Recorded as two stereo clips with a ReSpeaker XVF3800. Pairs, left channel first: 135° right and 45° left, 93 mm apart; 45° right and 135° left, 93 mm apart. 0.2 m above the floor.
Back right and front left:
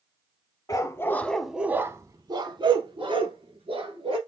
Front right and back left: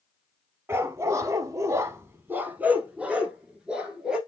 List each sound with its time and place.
0.7 s a dog barking: 170° right, 0.6 m; by 4.2 s 50° left, 1.6 m